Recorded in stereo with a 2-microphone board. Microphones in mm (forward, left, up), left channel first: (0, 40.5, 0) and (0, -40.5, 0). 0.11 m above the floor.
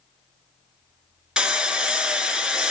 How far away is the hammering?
About 1.0 m.